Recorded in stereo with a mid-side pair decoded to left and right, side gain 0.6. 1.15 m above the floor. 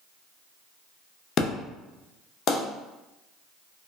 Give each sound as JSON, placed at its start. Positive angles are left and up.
{"t": 1.4, "sound": "an explosion", "azimuth_deg": 50, "distance_m": 0.6}